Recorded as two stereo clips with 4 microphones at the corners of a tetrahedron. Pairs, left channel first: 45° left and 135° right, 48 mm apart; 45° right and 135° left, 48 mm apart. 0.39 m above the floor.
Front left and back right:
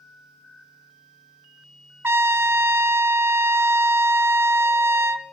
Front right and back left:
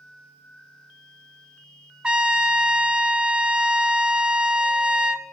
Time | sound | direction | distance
2.0 | a trumpet | 160° right | 0.6 m